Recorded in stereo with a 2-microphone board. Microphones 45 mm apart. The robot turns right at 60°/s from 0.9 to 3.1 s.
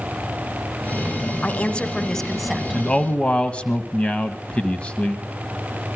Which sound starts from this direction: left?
A man speaking, at 2.7 s.